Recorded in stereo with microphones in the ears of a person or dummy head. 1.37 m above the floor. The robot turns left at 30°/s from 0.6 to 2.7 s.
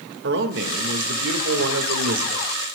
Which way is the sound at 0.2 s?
65° right.